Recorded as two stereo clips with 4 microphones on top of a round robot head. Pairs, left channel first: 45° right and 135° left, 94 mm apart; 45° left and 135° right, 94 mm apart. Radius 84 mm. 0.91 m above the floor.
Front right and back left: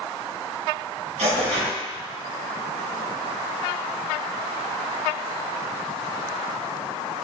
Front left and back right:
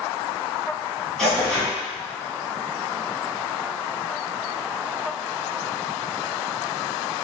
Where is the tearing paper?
130° left, 1.8 m.